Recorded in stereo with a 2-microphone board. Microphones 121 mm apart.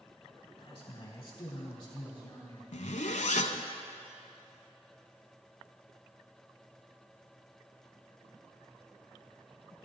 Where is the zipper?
80° left, 0.7 m.